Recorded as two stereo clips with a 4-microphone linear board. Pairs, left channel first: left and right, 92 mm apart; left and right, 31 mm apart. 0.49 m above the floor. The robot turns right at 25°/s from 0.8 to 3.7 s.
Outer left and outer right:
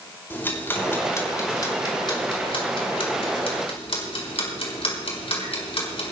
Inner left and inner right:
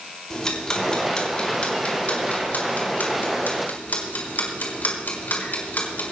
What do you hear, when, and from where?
0.3 s ticking: 20° left (ahead or behind), 4 m; by 6.1 s 75° left (ahead or behind), 4 m